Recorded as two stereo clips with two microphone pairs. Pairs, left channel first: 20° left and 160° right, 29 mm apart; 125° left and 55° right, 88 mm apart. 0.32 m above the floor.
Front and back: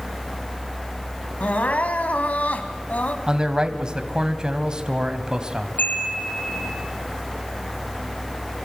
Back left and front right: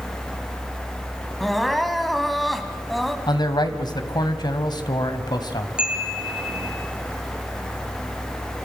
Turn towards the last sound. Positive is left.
turn(degrees=25)